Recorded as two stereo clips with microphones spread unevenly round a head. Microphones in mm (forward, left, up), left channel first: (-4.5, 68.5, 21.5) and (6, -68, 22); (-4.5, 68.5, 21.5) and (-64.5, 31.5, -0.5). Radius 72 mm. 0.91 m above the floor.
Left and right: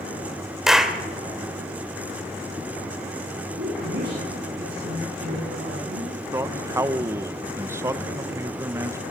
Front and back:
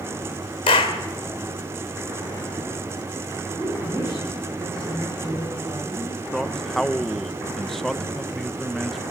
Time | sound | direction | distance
0.7 | a clap | straight ahead | 2.5 m
3.6 | a woman speaking | 70° right | 10 m
6.3 | a man speaking | 110° right | 0.9 m